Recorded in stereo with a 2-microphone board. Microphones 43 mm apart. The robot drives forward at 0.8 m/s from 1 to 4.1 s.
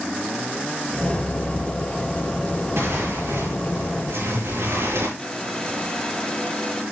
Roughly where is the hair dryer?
Centre.